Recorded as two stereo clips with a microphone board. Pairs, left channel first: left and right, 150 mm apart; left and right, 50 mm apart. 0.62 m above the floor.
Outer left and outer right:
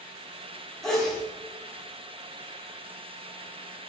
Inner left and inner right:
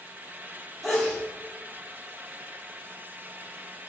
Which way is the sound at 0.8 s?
5° left (ahead or behind).